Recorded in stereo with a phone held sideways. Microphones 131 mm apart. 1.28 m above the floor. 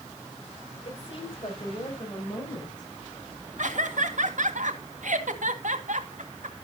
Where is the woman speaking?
45° left (ahead or behind), 5.5 m; by 2.9 s 30° left (ahead or behind), 7.5 m.